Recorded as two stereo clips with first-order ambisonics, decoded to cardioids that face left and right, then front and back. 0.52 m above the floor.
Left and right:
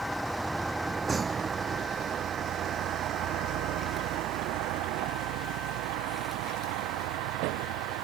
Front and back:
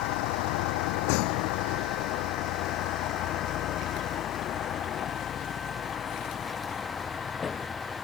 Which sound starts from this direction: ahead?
A vehicle, at 0.0 s.